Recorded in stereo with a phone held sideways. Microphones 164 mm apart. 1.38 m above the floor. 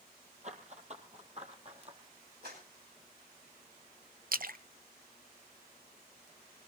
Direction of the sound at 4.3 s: 60° right (ahead or behind).